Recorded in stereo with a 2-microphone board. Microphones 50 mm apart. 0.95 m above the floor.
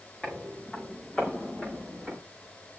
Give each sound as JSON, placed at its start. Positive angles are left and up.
{"t": 0.2, "sound": "footsteps", "side_deg": 25, "distance_m": 6.0}